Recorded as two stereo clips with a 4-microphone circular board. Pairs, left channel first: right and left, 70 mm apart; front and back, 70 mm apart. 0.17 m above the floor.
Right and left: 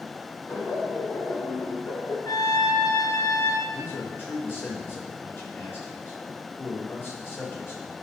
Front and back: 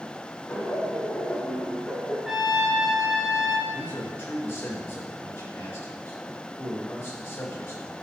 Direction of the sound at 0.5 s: 70° right.